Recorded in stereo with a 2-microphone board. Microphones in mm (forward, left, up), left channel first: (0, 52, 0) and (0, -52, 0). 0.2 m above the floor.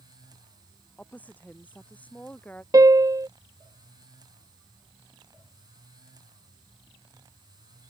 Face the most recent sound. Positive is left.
turn(degrees=-35)  # may be behind; listen again after turning